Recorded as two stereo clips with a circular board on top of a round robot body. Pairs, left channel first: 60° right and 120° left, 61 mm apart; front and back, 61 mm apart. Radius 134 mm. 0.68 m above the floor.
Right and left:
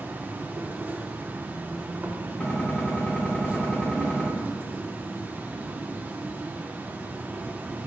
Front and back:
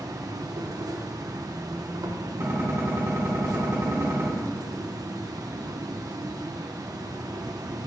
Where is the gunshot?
130° right, 5.5 m.